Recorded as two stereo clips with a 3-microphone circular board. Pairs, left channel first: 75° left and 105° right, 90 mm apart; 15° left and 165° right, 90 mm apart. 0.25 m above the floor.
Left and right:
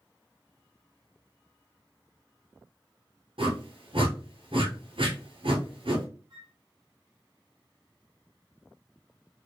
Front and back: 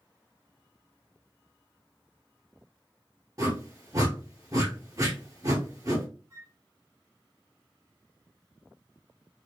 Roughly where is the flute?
Behind right.